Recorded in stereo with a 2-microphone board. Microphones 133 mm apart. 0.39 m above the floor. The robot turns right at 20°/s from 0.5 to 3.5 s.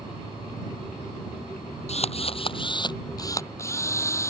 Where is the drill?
125° left; by 4.3 s 160° left.